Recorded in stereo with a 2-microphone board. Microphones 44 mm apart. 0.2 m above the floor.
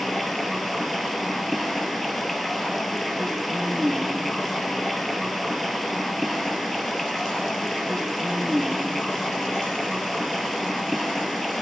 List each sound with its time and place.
0.0 s running water: centre (ahead or behind), 1.2 m